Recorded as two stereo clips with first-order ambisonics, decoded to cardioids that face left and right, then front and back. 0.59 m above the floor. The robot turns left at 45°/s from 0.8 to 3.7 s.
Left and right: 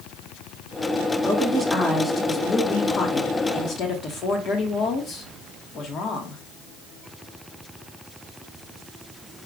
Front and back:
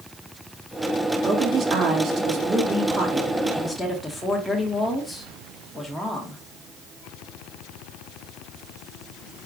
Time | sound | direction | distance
1.2 | a woman speaking | 155° right | 1.2 m